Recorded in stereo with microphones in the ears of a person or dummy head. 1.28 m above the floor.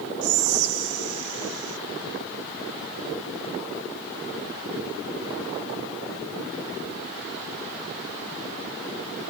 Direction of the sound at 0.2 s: 80° right.